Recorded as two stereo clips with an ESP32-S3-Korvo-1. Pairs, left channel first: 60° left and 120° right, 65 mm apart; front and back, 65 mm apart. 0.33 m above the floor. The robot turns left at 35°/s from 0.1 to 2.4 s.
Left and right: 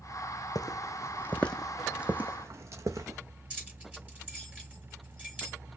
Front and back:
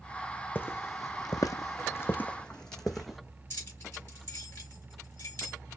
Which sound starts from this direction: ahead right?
Keys jangling, at 3.5 s.